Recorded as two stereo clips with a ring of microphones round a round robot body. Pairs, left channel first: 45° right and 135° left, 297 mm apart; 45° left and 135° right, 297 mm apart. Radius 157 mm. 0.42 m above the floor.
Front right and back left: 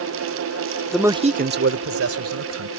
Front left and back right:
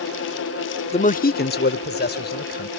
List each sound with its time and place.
0.9 s a man speaking: 40° left; by 2.7 s 100° left